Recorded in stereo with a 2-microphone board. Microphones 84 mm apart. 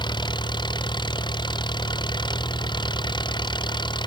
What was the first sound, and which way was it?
An engine running, 65° left (ahead or behind).